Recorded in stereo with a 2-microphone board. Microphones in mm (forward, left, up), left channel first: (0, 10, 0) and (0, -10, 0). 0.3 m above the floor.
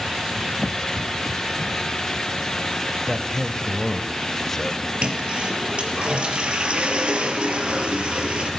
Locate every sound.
3.1 s a man speaking: 15° left (ahead or behind), 1.5 m
5.0 s a toilet flushing: 55° right (ahead or behind), 4 m